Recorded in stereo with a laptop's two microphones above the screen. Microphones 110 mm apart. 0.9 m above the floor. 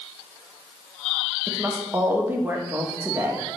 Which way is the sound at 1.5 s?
20° right (ahead or behind).